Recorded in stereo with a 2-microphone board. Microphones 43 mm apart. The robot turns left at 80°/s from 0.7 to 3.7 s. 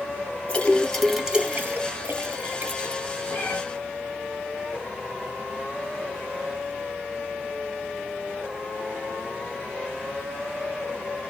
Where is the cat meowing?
40° left (ahead or behind), 1.5 m; by 3.6 s 20° left (ahead or behind), 1.5 m.